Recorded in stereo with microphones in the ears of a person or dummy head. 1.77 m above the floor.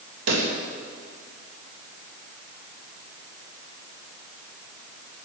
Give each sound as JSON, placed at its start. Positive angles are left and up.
{"t": 0.3, "sound": "a pop", "side_deg": -80, "distance_m": 2.5}